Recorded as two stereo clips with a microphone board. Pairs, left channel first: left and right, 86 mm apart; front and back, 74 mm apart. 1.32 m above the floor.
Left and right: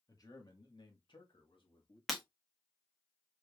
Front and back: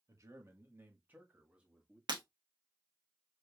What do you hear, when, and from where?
0.1 s a man speaking: 135° left, 1.4 m; by 2.0 s 95° left, 1.7 m
2.1 s breaking glass: straight behind, 1.2 m